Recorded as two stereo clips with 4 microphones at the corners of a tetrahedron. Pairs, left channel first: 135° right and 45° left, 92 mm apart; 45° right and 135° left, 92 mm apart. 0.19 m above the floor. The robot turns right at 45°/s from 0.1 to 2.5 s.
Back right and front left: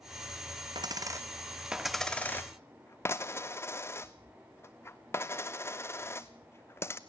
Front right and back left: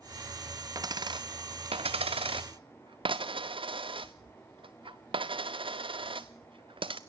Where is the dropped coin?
85° left, 1.2 m; by 7.0 s 160° left, 1.2 m.